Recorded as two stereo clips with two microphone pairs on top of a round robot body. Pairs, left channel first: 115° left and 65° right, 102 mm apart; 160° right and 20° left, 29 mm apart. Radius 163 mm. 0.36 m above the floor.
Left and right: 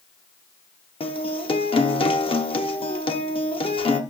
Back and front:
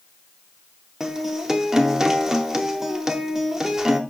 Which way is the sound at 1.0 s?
95° left.